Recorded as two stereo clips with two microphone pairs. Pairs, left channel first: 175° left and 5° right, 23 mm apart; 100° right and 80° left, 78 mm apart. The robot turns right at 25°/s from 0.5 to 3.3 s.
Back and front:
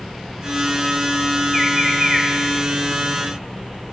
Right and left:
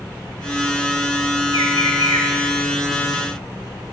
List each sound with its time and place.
1.5 s a bird: 100° right, 1.8 m; by 2.3 s 80° right, 1.8 m